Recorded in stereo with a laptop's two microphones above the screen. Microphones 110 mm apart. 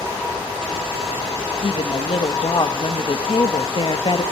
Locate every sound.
1.6 s a woman speaking: 55° left (ahead or behind), 1.4 m